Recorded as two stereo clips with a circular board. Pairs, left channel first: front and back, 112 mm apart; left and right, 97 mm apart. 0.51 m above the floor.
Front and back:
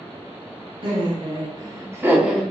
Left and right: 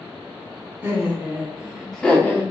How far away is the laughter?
About 1.4 m.